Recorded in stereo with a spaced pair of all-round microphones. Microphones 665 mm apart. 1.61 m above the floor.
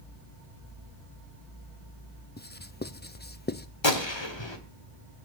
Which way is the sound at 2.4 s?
15° left (ahead or behind).